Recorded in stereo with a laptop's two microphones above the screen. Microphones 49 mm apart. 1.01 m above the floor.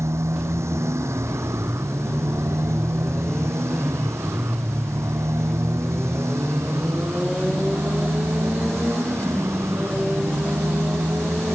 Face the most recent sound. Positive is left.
turn(degrees=-70)  # may be behind; listen again after turning